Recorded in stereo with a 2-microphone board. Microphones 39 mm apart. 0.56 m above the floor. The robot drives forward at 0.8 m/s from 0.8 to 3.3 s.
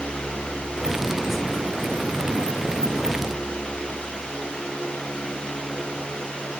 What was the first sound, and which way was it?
Only background noise.